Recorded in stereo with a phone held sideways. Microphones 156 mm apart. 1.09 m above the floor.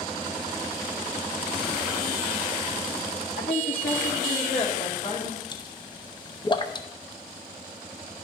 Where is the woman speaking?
80° left, 1.9 m; by 5.4 s 50° left (ahead or behind), 4 m.